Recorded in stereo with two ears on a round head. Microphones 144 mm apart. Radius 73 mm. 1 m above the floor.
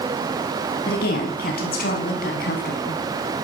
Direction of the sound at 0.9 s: 65° left (ahead or behind).